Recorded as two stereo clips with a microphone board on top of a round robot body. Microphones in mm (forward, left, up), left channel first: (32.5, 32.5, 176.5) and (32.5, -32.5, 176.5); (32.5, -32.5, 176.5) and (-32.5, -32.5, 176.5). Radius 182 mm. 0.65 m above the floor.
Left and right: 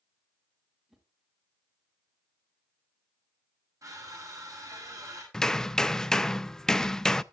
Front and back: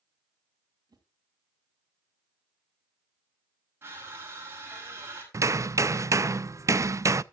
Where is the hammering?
170° left, 0.6 m.